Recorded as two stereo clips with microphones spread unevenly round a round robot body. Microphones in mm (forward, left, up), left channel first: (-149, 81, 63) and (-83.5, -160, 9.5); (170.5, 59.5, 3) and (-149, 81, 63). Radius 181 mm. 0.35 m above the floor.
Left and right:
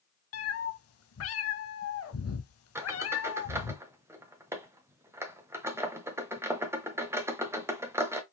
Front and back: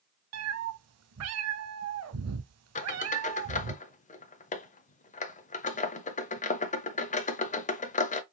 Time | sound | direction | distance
0.3 | a cat meowing | 135° left | 0.8 m
2.8 | a squeak | 25° right | 0.6 m